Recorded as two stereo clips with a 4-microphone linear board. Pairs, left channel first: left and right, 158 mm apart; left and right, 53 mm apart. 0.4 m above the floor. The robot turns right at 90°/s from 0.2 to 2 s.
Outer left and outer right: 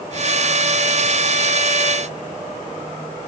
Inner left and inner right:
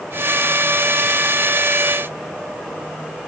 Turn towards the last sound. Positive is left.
No sound to turn to.